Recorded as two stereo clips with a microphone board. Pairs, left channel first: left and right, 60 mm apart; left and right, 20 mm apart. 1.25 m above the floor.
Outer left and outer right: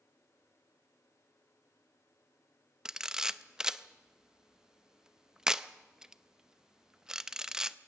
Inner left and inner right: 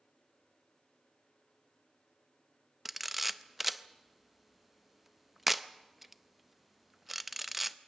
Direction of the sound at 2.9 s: 10° right (ahead or behind).